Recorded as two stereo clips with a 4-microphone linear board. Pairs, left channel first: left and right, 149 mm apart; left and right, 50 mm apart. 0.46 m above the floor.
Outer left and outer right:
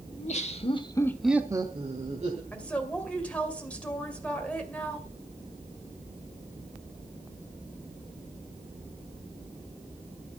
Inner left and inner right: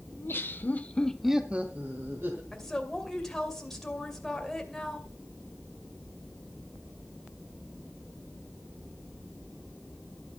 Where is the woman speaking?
10° left (ahead or behind), 2.5 m.